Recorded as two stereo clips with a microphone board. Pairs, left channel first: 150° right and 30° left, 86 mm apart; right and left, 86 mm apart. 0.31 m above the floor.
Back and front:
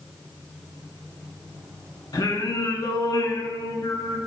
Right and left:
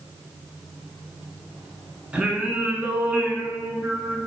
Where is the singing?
165° left, 0.7 m.